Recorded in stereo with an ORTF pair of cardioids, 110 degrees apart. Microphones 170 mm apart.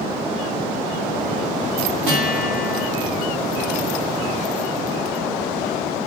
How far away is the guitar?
About 2 m.